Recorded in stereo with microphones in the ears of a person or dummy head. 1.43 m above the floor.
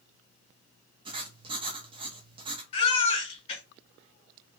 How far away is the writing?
About 0.5 m.